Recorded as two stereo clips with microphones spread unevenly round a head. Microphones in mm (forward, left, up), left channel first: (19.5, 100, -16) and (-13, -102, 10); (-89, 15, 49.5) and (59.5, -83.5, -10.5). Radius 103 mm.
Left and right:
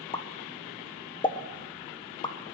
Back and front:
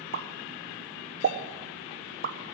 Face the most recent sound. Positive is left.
turn(degrees=10)